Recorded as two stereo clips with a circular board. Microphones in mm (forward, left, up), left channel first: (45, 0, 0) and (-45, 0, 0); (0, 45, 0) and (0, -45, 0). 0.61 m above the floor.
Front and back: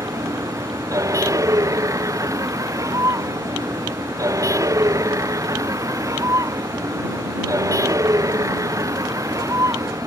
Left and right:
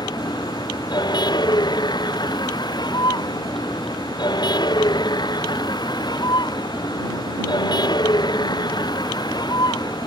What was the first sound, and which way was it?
A vehicle, 130° left.